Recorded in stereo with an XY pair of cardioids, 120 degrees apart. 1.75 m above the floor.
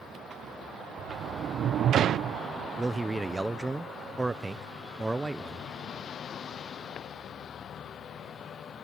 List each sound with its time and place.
1.0 s a sliding door: 55° right
2.8 s a man speaking: 15° right